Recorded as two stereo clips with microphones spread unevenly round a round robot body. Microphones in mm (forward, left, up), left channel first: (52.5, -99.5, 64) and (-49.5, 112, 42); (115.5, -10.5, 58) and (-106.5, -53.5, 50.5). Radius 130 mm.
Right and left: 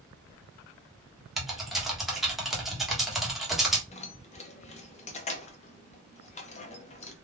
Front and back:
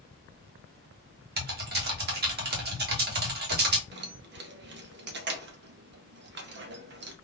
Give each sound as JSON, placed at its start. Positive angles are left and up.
{"t": 1.4, "sound": "typing on a keyboard", "azimuth_deg": -160, "distance_m": 1.2}
{"t": 3.9, "sound": "keys jangling", "azimuth_deg": -130, "distance_m": 0.7}